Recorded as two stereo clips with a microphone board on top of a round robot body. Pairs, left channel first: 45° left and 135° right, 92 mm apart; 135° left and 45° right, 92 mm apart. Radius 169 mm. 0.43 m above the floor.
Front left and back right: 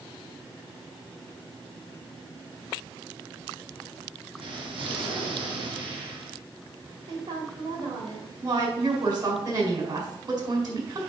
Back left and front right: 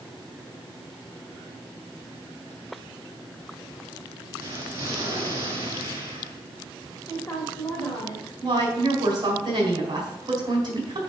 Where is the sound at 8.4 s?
90° right, 3.5 m.